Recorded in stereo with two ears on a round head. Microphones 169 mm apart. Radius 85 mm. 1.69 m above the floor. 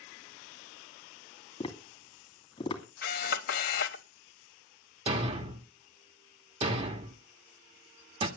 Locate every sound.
1.6 s tapping: 25° left (ahead or behind), 2.5 m
3.0 s a camera shutter: 55° left (ahead or behind), 1.4 m
5.1 s a thud: 30° right (ahead or behind), 1.5 m